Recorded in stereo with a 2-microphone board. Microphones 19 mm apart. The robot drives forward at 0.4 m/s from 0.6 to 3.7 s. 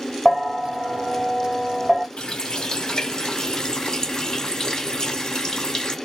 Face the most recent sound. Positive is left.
turn(degrees=35)  # may be behind; listen again after turning